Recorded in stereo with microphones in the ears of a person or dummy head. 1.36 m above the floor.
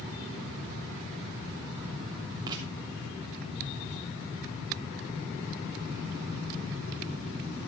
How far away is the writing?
About 3 m.